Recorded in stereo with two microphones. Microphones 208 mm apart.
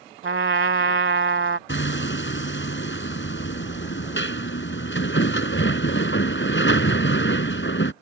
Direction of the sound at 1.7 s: 65° left (ahead or behind).